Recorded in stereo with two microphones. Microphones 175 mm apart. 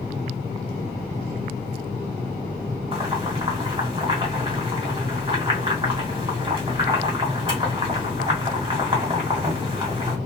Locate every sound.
2.9 s boiling: 30° right (ahead or behind), 1.5 m